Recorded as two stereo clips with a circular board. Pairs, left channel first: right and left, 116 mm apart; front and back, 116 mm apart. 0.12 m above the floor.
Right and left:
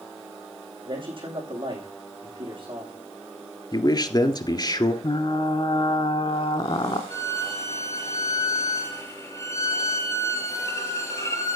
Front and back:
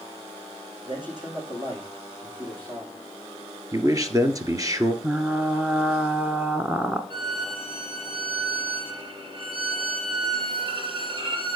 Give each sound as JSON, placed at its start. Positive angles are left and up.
{"t": 0.8, "sound": "a man speaking", "azimuth_deg": 130, "distance_m": 5.5}
{"t": 3.7, "sound": "a man speaking", "azimuth_deg": -130, "distance_m": 1.6}
{"t": 5.0, "sound": "frying", "azimuth_deg": -105, "distance_m": 1.0}
{"t": 7.1, "sound": "a violin", "azimuth_deg": -150, "distance_m": 3.0}